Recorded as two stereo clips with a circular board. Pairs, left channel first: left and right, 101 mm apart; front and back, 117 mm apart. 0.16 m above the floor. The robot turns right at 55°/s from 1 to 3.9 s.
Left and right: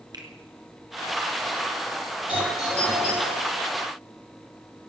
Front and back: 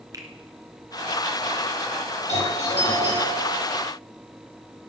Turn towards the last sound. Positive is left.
turn(degrees=75)